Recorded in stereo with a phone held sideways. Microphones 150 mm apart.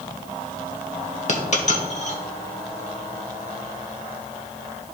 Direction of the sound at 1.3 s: 50° left (ahead or behind).